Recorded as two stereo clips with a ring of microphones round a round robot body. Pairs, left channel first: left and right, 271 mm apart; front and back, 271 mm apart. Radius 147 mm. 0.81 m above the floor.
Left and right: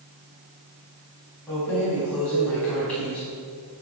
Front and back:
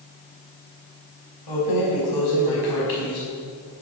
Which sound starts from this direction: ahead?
Keys jangling, at 1.5 s.